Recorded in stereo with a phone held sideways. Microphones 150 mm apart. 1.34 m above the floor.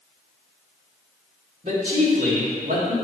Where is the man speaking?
55° right (ahead or behind), 2.5 m; by 3.0 s 65° right (ahead or behind), 3 m.